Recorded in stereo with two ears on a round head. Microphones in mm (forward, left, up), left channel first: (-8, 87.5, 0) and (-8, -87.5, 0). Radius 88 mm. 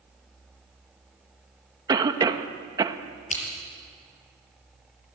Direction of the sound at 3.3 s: 40° left (ahead or behind).